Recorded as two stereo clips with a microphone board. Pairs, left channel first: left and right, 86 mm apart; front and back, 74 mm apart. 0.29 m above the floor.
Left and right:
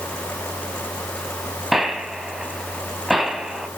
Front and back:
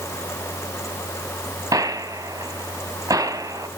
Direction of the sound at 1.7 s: Straight behind.